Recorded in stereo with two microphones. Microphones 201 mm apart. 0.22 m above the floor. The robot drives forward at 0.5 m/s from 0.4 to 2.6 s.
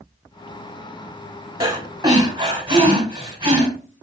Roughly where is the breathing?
Right.